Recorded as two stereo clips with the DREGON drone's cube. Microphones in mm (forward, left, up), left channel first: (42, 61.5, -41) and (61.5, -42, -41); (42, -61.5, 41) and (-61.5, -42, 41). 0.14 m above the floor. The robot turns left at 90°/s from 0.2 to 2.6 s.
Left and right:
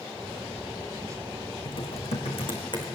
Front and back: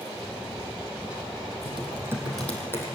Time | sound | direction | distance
1.6 | typing on a keyboard | 145° left | 4 m